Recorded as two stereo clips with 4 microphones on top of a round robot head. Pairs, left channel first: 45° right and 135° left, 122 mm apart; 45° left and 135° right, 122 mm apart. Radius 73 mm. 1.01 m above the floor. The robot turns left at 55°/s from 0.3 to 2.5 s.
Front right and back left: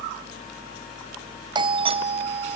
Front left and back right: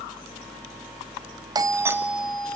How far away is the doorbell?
About 1.1 m.